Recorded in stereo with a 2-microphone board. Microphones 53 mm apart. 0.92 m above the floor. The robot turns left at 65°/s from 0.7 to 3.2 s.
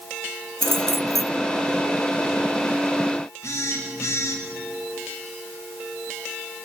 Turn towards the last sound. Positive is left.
turn(degrees=80)